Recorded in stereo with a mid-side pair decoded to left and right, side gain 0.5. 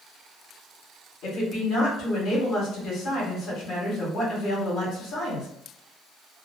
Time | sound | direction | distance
1.2 | a woman speaking | 70° left | 1.7 m